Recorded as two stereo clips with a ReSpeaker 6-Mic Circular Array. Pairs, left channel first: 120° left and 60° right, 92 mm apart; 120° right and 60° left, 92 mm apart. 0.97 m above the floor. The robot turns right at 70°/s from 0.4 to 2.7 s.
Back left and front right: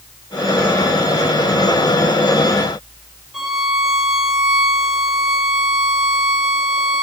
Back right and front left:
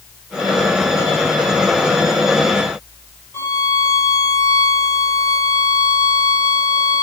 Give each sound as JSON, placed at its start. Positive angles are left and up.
{"t": 3.3, "sound": "a violin", "azimuth_deg": -145, "distance_m": 0.7}